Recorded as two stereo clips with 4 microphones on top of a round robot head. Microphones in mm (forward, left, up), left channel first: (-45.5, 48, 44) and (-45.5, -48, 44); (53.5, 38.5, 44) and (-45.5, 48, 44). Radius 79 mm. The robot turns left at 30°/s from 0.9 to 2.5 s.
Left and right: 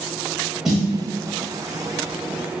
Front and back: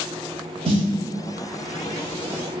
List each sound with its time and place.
0.7 s a snare drum: 170° right, 0.7 m